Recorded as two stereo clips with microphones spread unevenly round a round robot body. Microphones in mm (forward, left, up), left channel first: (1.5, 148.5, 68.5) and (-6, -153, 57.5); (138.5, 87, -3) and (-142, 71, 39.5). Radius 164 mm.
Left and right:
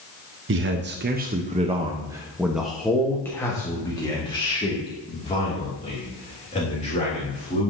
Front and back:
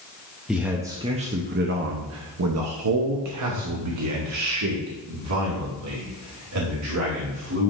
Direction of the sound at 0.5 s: 80° right.